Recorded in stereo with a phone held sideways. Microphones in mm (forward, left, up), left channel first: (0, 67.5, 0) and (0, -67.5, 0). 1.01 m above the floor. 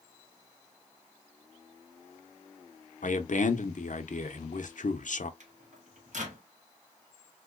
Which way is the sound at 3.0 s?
70° left (ahead or behind).